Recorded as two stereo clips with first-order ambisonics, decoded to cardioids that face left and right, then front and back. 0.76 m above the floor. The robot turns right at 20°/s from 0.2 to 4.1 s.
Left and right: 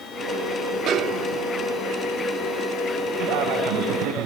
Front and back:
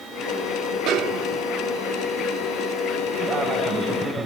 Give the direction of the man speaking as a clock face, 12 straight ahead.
4 o'clock.